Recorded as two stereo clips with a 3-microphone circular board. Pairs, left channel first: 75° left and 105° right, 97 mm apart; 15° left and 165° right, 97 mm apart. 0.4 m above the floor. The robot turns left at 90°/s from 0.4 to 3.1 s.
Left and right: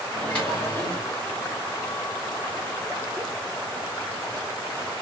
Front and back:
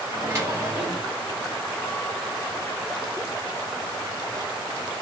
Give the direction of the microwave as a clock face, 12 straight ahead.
7 o'clock.